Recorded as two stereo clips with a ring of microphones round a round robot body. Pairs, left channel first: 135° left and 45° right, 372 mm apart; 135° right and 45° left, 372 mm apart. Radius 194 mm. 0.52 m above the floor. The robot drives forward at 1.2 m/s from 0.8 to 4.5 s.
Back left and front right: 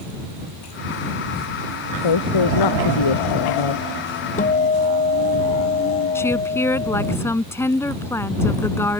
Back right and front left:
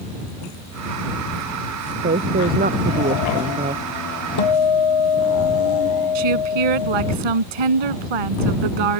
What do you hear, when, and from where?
2.0 s a woman speaking: 110° left; by 3.8 s 115° left
4.4 s a guitar: 155° right
6.2 s a woman speaking: 50° left